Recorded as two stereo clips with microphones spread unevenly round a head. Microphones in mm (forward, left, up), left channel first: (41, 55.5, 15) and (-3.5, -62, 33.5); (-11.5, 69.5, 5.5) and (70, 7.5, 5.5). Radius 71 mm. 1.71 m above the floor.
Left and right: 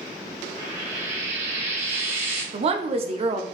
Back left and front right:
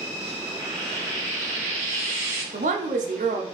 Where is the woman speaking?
65° right, 0.5 m.